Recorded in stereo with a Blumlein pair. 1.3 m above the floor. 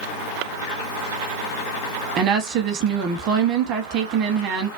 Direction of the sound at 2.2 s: 35° right.